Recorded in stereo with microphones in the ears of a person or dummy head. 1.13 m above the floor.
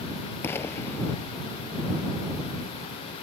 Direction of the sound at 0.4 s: 20° left (ahead or behind).